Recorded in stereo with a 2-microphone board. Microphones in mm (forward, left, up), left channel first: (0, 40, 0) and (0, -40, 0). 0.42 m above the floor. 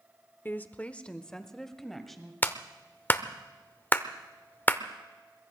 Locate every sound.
0.5 s a woman speaking: 25° left (ahead or behind), 0.8 m; by 2.3 s 5° left (ahead or behind), 2 m
2.4 s a clap: 25° left (ahead or behind), 0.8 m